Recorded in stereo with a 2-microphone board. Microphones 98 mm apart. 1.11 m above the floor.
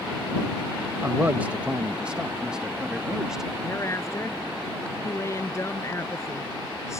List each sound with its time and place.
1.0 s a man speaking: 25° right (ahead or behind); by 3.5 s 5° right (ahead or behind)
3.6 s a woman speaking: 35° left (ahead or behind)